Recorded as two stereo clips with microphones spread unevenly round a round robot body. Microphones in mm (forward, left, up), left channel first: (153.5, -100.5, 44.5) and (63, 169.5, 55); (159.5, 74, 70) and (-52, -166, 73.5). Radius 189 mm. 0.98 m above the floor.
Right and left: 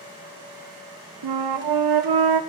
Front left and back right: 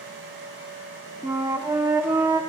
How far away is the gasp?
I don't hear a gasp.